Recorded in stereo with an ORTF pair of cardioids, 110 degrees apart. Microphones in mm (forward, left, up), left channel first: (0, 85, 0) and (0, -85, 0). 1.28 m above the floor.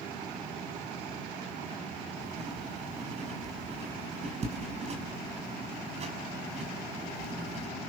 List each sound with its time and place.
2.2 s writing: 40° right, 6 m